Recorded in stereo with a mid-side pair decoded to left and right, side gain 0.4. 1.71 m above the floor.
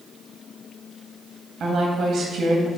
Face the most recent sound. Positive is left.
turn(degrees=-65)